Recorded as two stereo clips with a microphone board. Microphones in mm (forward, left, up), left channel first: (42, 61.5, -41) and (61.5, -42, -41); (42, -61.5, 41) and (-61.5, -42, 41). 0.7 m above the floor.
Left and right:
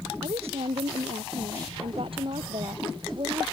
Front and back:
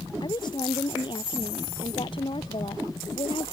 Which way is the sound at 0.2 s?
55° right.